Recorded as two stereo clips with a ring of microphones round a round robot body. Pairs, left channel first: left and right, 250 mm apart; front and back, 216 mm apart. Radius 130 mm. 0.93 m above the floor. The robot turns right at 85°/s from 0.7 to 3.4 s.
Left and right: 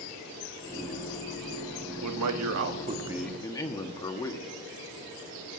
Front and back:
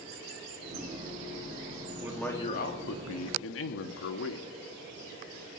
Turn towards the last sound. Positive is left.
turn(degrees=15)